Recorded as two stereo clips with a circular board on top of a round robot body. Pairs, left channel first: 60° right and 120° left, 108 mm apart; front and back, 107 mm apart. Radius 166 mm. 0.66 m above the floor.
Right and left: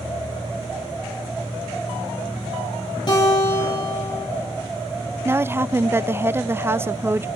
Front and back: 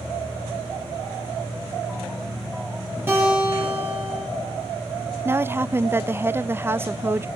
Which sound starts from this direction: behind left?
A woman speaking, at 5.2 s.